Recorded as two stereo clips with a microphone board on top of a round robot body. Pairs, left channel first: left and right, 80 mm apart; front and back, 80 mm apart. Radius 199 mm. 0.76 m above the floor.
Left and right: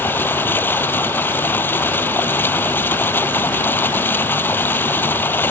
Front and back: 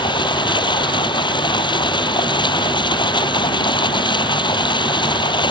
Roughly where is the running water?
Ahead left.